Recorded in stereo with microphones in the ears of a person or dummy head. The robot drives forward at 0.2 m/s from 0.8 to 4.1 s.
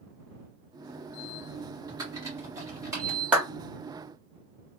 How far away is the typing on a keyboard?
About 1.4 m.